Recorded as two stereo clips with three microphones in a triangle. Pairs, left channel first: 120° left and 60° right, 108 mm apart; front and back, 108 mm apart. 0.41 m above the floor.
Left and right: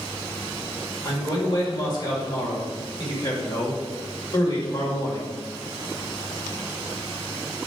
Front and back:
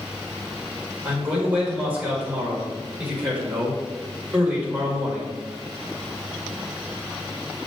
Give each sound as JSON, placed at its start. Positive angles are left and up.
{"t": 1.1, "sound": "a man speaking", "azimuth_deg": 110, "distance_m": 1.7}